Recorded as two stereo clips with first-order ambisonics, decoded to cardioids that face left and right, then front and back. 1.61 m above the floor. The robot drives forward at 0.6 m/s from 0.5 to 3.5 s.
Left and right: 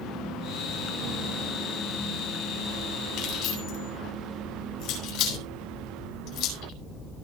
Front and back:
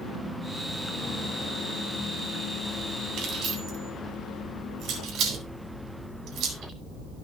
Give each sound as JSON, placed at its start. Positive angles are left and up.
{"t": 3.2, "sound": "keys jangling", "azimuth_deg": 125, "distance_m": 5.5}